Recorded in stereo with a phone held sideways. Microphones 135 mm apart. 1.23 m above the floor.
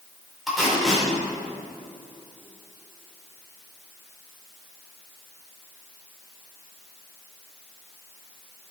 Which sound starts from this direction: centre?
Tape being pulled, at 0.5 s.